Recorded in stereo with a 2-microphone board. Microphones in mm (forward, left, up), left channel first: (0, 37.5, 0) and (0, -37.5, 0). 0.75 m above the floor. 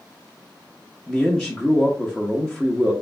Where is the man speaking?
5° left (ahead or behind), 0.7 m.